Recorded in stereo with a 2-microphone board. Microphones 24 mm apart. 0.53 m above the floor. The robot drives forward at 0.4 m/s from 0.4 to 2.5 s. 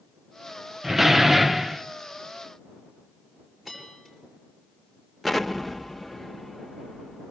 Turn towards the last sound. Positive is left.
turn(degrees=0)  # may be behind; listen again after turning